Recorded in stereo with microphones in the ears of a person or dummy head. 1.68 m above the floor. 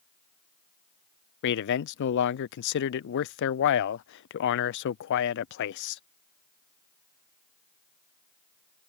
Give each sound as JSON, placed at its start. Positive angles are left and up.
{"t": 1.4, "sound": "a man speaking", "side_deg": 65}